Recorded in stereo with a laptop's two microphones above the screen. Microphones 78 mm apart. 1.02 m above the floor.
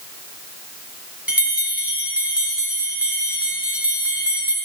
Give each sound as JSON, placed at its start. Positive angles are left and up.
{"t": 1.3, "sound": "a bell", "side_deg": -15, "distance_m": 2.5}